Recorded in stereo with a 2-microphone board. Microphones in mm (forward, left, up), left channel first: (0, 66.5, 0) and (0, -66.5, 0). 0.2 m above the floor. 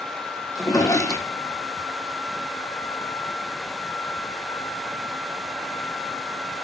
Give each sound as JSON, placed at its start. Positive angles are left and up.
{"t": 0.6, "sound": "a drawer", "side_deg": 25, "distance_m": 1.7}